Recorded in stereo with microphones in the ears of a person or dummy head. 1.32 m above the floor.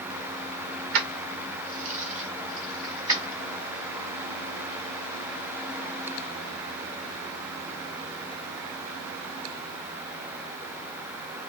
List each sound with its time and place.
0.9 s keys jangling: 65° right (ahead or behind), 0.9 m; by 3.4 s 20° right (ahead or behind), 2 m